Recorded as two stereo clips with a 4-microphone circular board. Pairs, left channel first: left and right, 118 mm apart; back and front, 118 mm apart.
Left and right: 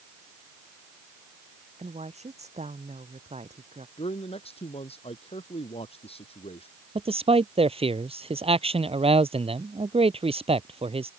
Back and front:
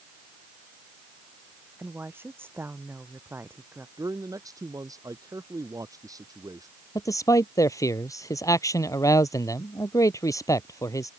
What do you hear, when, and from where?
1.8 s a woman speaking: 70° right
4.0 s a man speaking: 60° left
7.0 s a man speaking: 120° right